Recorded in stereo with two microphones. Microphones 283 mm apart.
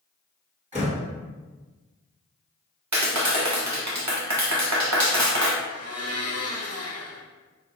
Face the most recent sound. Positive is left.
turn(degrees=60)  # may be behind; listen again after turning